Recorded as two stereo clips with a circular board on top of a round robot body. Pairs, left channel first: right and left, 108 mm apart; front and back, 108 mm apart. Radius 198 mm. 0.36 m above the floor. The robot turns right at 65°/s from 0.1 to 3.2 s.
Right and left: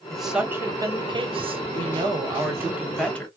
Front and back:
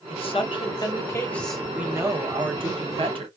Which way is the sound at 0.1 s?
5° right.